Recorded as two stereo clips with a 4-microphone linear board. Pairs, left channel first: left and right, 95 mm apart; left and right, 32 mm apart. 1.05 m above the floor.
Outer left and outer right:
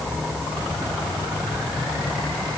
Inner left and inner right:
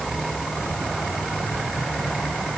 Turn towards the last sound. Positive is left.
No sound to turn to.